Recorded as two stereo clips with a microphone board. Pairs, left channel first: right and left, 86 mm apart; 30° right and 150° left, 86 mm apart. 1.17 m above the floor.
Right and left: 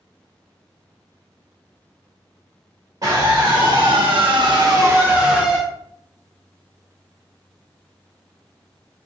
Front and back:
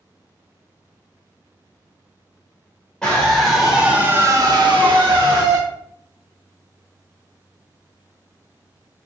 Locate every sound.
3.0 s a scream: 50° left, 2.5 m; by 5.6 s 170° left, 1.8 m